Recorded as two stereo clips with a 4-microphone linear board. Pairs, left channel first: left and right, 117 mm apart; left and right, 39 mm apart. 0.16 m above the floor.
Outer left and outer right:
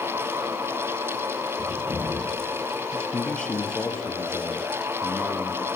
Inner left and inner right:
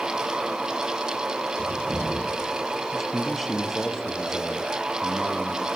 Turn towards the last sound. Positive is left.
turn(degrees=5)  # may be behind; listen again after turning